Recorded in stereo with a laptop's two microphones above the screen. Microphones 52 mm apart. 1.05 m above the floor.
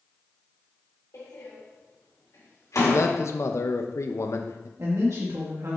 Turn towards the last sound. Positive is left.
turn(degrees=-75)  # may be behind; listen again after turning